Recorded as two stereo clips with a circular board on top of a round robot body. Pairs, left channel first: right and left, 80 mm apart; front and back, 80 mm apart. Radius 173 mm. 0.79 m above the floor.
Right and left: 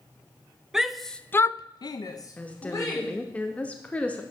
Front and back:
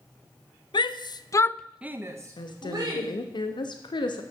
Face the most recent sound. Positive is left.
turn(degrees=-15)